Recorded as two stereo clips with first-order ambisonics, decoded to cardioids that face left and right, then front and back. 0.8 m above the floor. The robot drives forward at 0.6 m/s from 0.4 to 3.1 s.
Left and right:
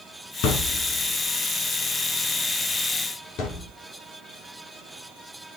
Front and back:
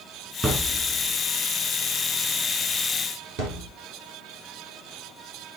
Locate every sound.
0.4 s a thud: 105° left, 2.5 m; by 3.7 s 135° left, 3.5 m